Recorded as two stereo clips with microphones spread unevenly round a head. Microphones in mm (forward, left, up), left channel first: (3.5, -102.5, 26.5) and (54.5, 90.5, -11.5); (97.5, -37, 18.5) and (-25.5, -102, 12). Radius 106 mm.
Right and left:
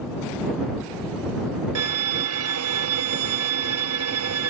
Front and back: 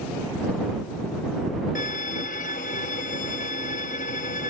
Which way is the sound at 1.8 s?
80° left.